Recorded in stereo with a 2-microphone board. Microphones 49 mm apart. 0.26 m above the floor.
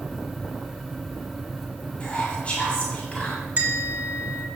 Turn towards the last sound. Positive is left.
turn(degrees=-35)  # may be behind; listen again after turning